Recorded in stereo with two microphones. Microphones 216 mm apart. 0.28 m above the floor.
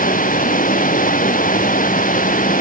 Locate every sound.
0.0 s running water: 40° left (ahead or behind)